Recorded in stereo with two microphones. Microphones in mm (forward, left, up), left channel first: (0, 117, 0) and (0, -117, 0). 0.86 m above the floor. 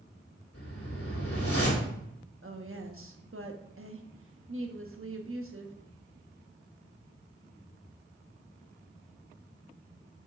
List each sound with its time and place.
0.5 s a whoosh: 75° left (ahead or behind), 2.5 m
2.4 s a woman speaking: 65° right (ahead or behind), 1.2 m